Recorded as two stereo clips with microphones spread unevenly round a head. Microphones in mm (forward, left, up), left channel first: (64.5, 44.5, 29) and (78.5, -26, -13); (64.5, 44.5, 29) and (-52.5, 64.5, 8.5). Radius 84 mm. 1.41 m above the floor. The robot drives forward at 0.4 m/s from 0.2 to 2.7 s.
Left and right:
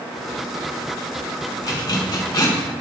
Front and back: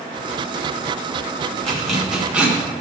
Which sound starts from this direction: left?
A zipper, at 1.6 s.